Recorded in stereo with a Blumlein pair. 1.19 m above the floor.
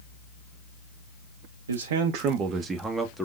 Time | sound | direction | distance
1.7 | a man speaking | 70° right | 0.6 m